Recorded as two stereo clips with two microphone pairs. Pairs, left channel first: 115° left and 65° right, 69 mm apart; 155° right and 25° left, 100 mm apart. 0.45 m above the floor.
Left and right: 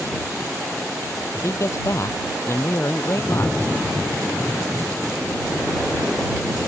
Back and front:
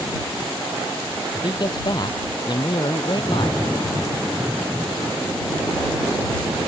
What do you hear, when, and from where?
1.4 s a man speaking: 160° left; by 3.6 s 165° left